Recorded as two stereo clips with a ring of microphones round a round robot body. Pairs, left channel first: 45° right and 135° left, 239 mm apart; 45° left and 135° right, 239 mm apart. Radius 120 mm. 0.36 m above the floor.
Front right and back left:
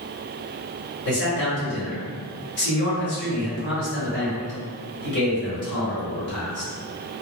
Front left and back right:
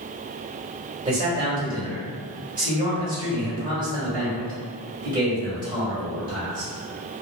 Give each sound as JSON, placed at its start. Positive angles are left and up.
{"t": 1.1, "sound": "a man speaking", "azimuth_deg": -65, "distance_m": 1.7}